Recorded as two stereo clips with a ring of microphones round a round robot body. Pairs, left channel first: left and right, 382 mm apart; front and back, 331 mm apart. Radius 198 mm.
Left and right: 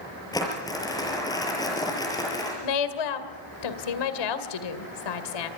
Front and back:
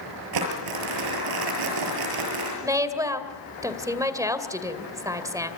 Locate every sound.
0.3 s crumpling: 170° left, 6.5 m
2.6 s a woman speaking: 100° left, 2.5 m